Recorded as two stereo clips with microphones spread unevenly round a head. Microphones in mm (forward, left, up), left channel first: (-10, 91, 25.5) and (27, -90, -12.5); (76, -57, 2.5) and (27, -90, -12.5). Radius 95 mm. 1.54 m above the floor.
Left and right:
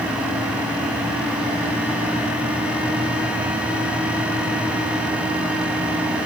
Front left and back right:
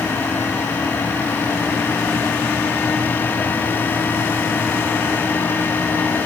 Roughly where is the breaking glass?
I don't hear breaking glass.